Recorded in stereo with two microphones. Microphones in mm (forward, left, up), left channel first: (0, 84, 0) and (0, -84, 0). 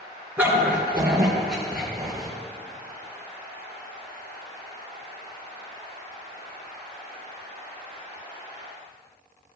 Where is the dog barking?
10° right (ahead or behind), 3 m; by 2.3 s centre (ahead or behind), 4 m.